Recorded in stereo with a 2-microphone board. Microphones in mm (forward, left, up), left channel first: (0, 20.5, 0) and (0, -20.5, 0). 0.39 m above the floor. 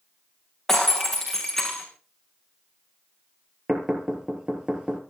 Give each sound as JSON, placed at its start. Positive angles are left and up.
{"t": 0.7, "sound": "breaking glass", "side_deg": 5, "distance_m": 6.5}
{"t": 3.7, "sound": "knocking", "side_deg": -15, "distance_m": 5.0}